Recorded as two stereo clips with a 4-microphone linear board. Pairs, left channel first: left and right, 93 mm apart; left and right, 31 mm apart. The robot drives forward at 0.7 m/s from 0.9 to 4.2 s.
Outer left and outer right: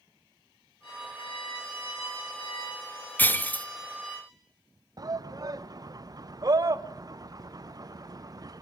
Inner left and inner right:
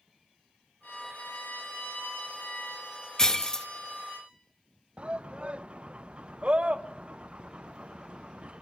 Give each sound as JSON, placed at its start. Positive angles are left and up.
{"t": 0.8, "sound": "a violin", "side_deg": 80, "distance_m": 3.0}
{"t": 3.2, "sound": "breaking glass", "side_deg": 20, "distance_m": 0.5}
{"t": 5.0, "sound": "a shout", "side_deg": -40, "distance_m": 0.6}